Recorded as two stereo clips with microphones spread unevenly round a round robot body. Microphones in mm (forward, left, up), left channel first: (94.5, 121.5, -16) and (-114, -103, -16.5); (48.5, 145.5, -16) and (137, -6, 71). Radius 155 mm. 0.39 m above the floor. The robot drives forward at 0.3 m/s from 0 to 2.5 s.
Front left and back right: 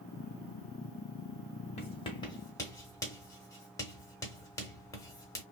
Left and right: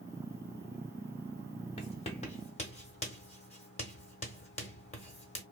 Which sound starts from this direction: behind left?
Writing, at 1.8 s.